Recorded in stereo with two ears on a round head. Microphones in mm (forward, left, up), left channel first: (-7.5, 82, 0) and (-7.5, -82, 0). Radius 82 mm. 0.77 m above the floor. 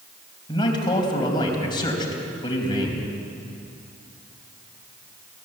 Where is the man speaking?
25° left (ahead or behind), 4 m.